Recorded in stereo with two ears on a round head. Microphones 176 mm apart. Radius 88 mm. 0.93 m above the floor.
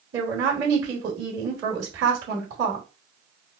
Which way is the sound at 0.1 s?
70° right (ahead or behind).